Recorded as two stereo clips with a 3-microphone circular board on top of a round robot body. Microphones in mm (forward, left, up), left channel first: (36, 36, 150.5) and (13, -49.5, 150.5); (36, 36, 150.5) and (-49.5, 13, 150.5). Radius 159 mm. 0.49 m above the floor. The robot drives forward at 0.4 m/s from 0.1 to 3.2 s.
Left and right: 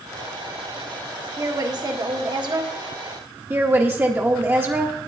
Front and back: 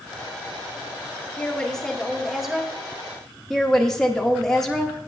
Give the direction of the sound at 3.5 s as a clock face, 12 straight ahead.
2 o'clock.